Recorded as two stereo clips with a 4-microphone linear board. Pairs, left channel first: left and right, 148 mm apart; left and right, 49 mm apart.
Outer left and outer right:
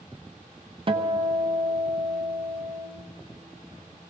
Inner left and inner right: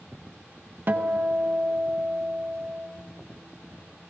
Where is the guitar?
40° right (ahead or behind), 0.7 m.